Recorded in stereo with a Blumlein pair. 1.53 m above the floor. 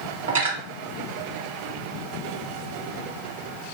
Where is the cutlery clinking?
60° right, 2.0 m.